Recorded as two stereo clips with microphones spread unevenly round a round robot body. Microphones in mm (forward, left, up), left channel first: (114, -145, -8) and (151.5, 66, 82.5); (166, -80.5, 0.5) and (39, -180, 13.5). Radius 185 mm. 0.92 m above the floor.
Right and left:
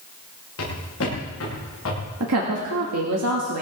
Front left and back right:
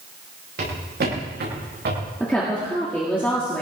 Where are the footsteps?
140° right, 8.5 m.